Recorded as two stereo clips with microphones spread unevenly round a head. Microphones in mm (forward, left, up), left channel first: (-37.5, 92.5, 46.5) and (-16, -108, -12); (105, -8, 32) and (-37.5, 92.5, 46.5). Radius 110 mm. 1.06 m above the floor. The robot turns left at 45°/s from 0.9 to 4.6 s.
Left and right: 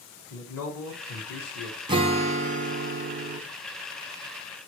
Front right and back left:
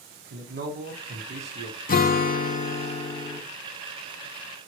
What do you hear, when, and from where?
0.3 s a man speaking: 115° left, 1.5 m; by 1.8 s 75° left, 1.5 m
1.9 s a guitar: 35° right, 0.7 m; by 3.4 s 105° right, 0.7 m